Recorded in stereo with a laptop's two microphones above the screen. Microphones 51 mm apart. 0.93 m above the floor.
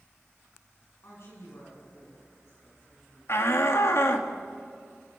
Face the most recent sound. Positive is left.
turn(degrees=60)  # may be behind; listen again after turning